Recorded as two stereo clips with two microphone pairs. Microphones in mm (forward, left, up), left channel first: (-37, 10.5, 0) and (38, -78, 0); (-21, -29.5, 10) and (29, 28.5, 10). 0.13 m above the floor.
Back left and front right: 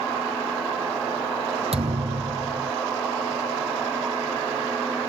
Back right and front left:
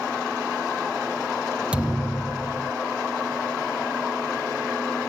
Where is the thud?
25° right.